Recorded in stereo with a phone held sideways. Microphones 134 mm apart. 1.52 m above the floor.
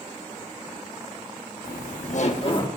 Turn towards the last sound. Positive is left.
turn(degrees=35)  # may be behind; listen again after turning